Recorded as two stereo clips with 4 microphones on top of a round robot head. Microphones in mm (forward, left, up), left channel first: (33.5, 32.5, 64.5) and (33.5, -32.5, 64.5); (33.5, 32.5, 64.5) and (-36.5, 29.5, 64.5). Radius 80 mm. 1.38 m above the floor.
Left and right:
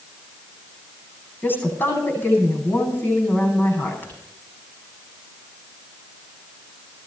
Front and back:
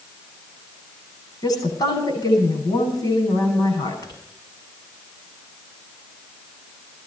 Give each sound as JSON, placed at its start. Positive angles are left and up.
{"t": 1.4, "sound": "a woman speaking", "azimuth_deg": 30, "distance_m": 9.5}